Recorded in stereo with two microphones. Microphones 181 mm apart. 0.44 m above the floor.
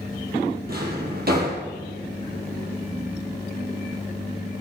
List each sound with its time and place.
0.7 s a drawer: 60° right (ahead or behind), 4.5 m